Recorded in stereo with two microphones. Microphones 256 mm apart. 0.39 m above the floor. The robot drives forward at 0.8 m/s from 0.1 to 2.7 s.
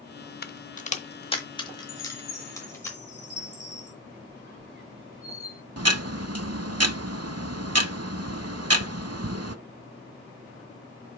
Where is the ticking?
75° right (ahead or behind), 0.5 m.